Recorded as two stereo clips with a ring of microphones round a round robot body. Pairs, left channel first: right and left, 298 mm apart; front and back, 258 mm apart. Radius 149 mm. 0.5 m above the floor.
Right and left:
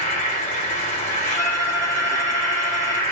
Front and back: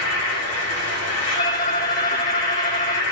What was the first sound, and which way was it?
An insect, 30° right.